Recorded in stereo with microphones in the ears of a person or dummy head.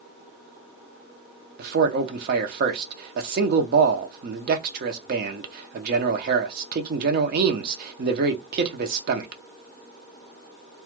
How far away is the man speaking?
About 0.6 m.